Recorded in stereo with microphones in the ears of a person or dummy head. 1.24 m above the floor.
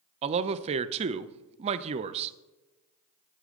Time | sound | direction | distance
0.2 | a man speaking | 35° right (ahead or behind) | 0.5 m